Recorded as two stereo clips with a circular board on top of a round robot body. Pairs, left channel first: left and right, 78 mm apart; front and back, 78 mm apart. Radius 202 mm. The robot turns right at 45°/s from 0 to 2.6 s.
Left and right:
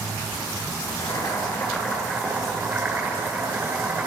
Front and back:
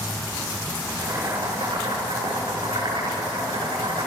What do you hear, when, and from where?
0.9 s boiling: 120° left, 6.5 m; by 4.1 s 160° right, 6.5 m